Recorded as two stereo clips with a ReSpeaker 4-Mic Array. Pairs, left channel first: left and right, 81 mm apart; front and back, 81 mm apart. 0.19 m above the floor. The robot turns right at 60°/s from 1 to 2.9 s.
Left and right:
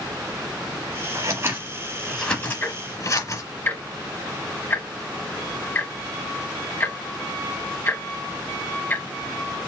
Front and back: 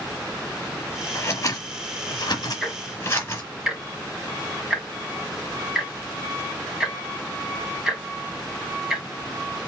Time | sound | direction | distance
1.1 | scissors | 50° right | 1.9 m
2.6 | ticking | 85° left | 1.4 m